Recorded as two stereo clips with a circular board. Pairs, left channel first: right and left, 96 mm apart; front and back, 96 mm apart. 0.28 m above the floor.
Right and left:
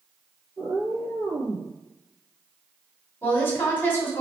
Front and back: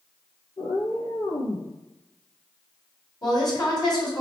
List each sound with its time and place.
0.6 s a cat meowing: 30° left, 1.2 m
3.2 s a woman speaking: 30° right, 2 m